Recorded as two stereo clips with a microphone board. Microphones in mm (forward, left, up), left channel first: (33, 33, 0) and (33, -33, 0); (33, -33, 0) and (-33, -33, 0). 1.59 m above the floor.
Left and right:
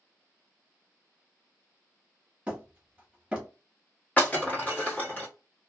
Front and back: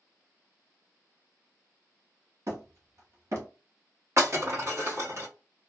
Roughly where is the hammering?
Behind.